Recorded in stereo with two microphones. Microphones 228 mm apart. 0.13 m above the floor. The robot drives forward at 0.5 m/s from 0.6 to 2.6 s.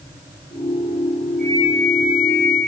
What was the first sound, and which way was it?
A flute, 40° left (ahead or behind).